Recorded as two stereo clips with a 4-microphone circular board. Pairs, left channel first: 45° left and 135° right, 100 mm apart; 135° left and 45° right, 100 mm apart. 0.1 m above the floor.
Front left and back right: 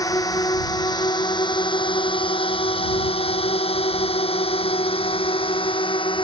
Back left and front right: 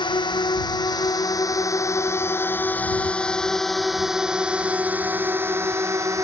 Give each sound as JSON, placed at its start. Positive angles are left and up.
{"t": 0.0, "sound": "a drone", "azimuth_deg": 100}